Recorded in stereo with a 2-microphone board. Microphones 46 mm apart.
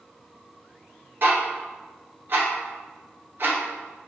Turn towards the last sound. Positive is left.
turn(degrees=-50)  # may be behind; listen again after turning